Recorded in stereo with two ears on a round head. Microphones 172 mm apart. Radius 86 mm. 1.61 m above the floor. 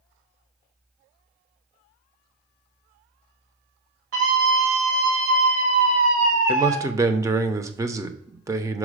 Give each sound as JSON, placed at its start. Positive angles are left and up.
{"t": 4.1, "sound": "a scream", "side_deg": -85, "distance_m": 4.0}
{"t": 6.5, "sound": "a man speaking", "side_deg": -20, "distance_m": 0.8}